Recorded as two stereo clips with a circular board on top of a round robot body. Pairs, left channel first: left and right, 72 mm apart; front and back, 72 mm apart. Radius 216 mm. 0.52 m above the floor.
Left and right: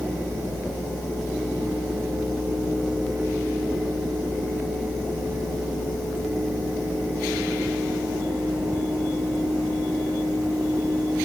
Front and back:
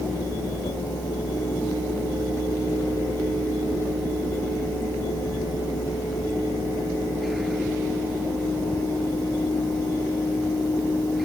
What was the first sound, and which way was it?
Only background noise.